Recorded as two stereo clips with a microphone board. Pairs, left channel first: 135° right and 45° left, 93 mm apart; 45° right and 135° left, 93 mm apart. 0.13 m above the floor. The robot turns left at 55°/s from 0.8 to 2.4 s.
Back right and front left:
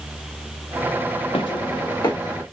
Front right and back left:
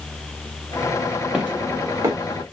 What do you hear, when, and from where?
1.3 s footsteps: 145° right, 0.8 m; by 2.4 s 165° left, 1.4 m